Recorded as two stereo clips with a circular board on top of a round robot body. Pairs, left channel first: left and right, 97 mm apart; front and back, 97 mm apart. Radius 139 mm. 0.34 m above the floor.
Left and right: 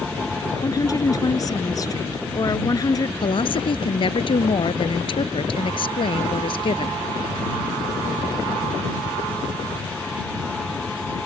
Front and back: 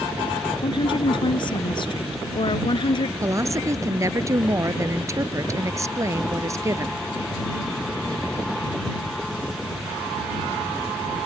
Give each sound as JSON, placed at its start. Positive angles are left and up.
{"t": 0.6, "sound": "a woman speaking", "azimuth_deg": 35}
{"t": 3.2, "sound": "a woman speaking", "azimuth_deg": 120}